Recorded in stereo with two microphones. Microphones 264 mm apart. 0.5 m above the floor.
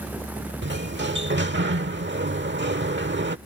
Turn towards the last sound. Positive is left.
turn(degrees=-45)  # may be behind; listen again after turning